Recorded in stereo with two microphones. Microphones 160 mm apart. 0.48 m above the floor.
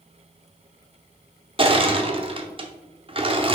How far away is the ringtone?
No ringtone in this recording.